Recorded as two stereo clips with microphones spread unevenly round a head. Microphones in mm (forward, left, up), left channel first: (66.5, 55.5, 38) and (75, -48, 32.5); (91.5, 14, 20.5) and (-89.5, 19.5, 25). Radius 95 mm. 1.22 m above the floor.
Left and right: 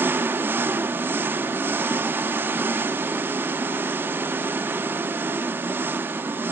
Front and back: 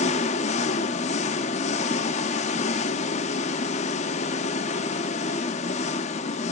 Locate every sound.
0.0 s an engine running: 25° right, 0.7 m